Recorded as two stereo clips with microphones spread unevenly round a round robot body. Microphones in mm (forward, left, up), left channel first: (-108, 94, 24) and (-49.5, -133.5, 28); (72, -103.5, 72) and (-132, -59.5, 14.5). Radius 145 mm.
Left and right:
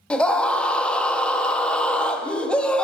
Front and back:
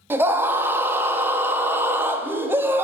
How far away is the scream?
About 0.6 m.